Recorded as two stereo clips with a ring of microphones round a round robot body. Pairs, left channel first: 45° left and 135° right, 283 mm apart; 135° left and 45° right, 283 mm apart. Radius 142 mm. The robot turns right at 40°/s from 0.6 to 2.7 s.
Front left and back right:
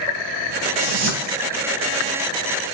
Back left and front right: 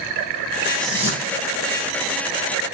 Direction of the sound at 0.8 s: 135° right.